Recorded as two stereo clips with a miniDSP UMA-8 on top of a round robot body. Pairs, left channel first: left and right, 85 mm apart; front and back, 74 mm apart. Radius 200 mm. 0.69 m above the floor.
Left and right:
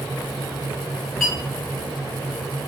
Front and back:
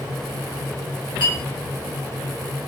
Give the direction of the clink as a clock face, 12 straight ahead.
12 o'clock.